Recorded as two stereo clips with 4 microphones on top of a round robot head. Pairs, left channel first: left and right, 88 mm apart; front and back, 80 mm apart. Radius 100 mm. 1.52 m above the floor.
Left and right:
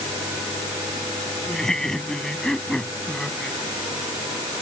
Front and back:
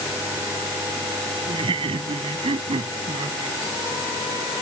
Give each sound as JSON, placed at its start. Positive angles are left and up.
{"t": 1.5, "sound": "laughter", "azimuth_deg": 175}